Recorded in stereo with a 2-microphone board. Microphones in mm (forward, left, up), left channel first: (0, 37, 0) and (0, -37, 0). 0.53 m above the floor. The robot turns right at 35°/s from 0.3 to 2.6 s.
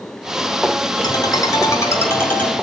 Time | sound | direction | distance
1.0 | a ringtone | 110° left | 3 m